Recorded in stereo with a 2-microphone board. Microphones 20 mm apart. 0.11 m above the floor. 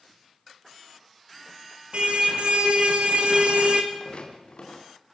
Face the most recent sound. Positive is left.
turn(degrees=60)  # may be behind; listen again after turning